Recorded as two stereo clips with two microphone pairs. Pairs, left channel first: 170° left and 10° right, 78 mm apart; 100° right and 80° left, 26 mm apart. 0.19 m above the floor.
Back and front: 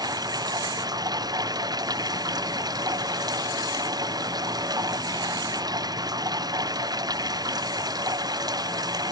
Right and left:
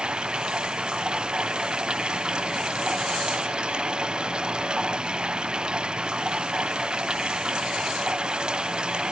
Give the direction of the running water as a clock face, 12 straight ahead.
11 o'clock.